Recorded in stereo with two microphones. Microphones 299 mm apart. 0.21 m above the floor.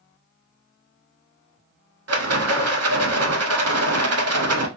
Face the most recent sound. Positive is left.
turn(degrees=-55)  # may be behind; listen again after turning